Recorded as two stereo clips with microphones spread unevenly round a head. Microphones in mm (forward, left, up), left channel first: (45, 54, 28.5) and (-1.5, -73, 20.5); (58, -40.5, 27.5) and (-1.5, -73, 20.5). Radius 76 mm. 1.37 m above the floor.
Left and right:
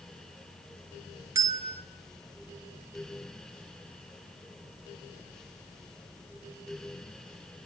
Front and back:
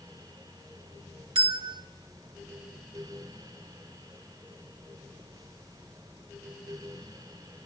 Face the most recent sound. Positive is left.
turn(degrees=180)